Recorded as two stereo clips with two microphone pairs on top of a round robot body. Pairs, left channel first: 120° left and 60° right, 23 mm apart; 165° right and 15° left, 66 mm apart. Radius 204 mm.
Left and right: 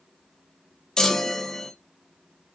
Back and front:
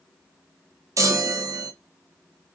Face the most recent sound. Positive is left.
turn(degrees=55)